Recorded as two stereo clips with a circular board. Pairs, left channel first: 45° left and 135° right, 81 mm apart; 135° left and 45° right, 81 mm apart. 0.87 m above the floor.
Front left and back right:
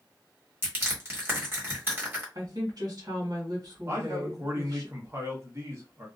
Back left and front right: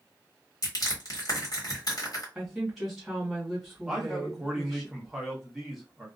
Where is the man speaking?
130° right, 1.0 m.